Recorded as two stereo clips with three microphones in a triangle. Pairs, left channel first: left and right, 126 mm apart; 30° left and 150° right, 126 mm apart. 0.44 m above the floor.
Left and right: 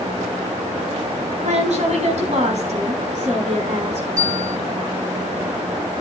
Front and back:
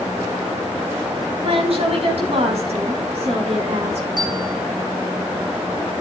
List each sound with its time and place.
1.4 s a woman speaking: 115° right, 4 m; by 4.1 s 120° right, 5 m
4.2 s a bell: 95° right, 4.5 m